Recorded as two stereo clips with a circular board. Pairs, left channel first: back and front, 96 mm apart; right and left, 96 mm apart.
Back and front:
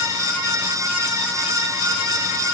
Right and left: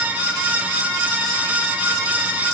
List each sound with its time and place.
Only background noise.